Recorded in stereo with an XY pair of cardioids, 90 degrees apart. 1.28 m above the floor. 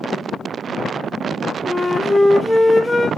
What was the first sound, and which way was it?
A flute, 15° left.